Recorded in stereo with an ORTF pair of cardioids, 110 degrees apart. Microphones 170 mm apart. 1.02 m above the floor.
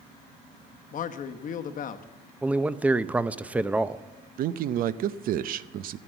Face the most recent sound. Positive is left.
turn(degrees=-60)